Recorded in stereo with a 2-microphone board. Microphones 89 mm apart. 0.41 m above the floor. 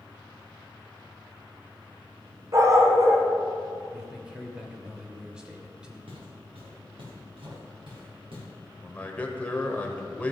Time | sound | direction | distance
2.5 | a dog barking | 40° right (ahead or behind) | 1.6 m
3.9 | a man speaking | 10° right (ahead or behind) | 1.7 m
6.1 | footsteps | 85° right | 3.5 m
8.8 | a man speaking | 15° left (ahead or behind) | 1.3 m